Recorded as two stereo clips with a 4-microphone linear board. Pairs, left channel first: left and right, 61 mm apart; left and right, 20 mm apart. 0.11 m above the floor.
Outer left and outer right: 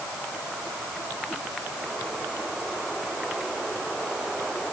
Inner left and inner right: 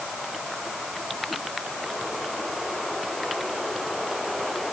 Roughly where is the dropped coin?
I don't hear a dropped coin.